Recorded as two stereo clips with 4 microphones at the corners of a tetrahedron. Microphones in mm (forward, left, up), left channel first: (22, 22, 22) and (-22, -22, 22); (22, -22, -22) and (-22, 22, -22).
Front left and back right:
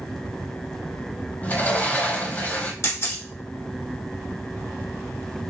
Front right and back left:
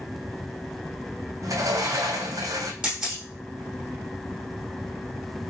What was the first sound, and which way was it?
A sliding door, 110° left.